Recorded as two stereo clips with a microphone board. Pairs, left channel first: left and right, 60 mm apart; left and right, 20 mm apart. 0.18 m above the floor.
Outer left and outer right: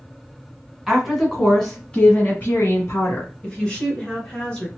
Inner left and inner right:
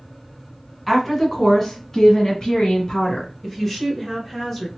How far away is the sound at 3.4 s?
About 1.6 m.